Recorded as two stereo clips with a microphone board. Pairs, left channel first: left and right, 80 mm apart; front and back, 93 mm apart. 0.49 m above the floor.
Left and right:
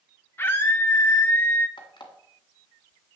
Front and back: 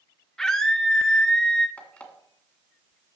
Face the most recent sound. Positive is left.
turn(degrees=75)